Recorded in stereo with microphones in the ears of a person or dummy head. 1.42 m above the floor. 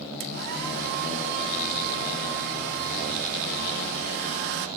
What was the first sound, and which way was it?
A hair dryer, 60° right (ahead or behind).